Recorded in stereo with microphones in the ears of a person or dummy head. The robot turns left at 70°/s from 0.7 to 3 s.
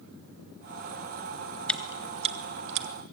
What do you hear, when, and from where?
1.7 s chewing: 5° left (ahead or behind), 1.6 m; by 2.9 s 80° right, 1.6 m